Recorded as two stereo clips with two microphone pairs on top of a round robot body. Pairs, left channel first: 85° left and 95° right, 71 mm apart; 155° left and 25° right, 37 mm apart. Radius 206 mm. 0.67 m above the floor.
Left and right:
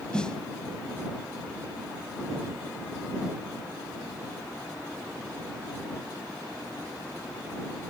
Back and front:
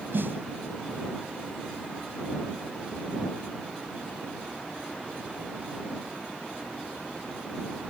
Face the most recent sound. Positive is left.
turn(degrees=5)